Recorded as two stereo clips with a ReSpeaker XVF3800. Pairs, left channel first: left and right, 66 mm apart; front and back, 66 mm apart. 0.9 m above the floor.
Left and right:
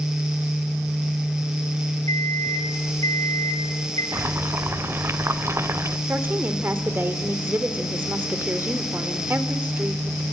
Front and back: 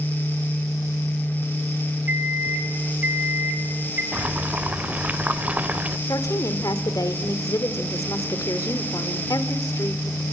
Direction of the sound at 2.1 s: 120° left.